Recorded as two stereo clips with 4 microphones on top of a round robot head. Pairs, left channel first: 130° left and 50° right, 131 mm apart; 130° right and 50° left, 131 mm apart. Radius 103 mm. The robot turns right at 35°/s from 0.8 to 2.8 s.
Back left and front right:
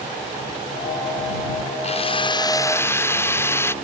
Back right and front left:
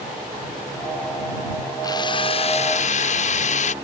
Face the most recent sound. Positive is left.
turn(degrees=-160)